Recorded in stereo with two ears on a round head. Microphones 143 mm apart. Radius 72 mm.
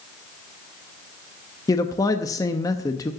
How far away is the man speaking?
About 0.7 m.